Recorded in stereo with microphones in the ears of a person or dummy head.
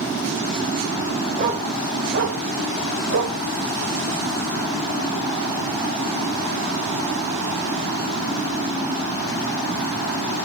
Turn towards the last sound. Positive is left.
turn(degrees=-60)  # may be behind; listen again after turning